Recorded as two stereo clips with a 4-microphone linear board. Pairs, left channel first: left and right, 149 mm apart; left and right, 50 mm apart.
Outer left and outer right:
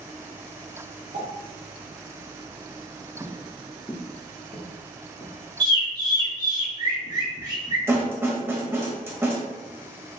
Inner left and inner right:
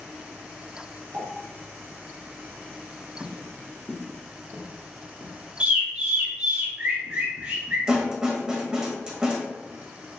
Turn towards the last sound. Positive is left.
turn(degrees=-15)  # may be behind; listen again after turning